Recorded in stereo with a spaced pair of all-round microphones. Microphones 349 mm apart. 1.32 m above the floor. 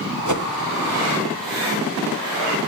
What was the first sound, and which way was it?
A whoosh, 55° right (ahead or behind).